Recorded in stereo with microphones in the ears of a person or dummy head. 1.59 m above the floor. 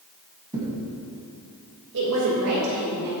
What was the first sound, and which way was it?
A thud, 20° right (ahead or behind).